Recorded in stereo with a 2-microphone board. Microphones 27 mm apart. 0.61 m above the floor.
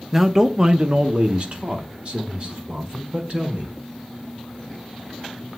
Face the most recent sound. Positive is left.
turn(degrees=-45)  # may be behind; listen again after turning